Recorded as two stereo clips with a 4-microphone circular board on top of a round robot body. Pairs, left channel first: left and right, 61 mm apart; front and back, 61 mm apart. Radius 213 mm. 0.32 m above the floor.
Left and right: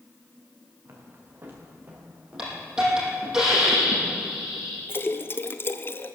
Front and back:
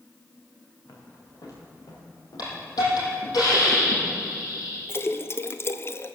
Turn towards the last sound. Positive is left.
turn(degrees=45)